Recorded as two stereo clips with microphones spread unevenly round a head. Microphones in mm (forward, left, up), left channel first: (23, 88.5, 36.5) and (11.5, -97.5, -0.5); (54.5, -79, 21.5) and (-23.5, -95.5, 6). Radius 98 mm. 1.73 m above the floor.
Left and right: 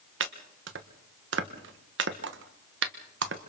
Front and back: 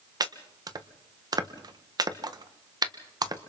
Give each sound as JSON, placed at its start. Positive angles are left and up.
{"t": 0.2, "sound": "chopping", "azimuth_deg": -130, "distance_m": 1.3}